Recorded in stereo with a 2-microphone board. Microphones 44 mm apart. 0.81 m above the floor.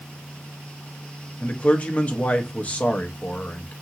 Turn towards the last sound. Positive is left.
turn(degrees=35)  # may be behind; listen again after turning